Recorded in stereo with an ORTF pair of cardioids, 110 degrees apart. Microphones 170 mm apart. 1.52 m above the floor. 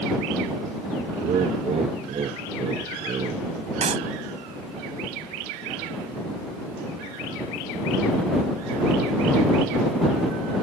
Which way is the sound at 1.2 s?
40° right.